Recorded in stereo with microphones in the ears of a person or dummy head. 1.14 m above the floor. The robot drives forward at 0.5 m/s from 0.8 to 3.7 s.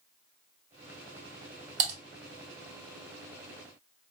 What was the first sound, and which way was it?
Typing on a keyboard, 45° right (ahead or behind).